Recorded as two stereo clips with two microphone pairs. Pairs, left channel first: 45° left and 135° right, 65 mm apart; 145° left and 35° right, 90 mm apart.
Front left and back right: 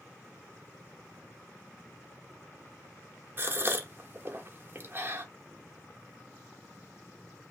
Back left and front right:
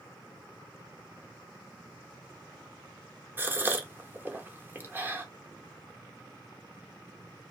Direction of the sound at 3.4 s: 95° right.